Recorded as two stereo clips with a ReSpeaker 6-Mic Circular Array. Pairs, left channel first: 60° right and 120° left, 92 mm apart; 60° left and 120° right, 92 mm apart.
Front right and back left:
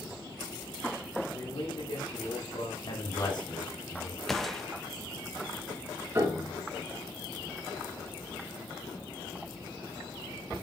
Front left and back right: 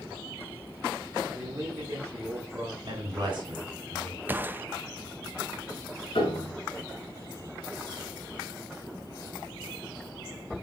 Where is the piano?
60° left, 2.0 m.